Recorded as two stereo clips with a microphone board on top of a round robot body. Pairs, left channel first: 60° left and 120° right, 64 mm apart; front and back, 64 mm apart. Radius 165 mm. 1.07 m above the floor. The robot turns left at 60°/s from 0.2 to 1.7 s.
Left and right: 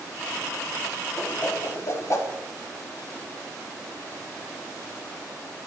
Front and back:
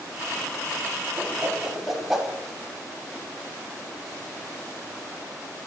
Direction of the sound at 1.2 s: 125° left.